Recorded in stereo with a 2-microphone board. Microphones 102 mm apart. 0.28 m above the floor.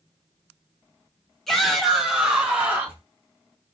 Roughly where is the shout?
Centre.